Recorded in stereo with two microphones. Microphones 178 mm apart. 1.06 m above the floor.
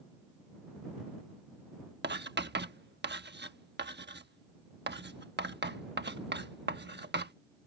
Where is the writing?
75° right (ahead or behind).